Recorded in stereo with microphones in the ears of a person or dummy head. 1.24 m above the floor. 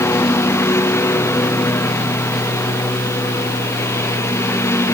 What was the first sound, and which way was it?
A lawn mower, 15° left (ahead or behind).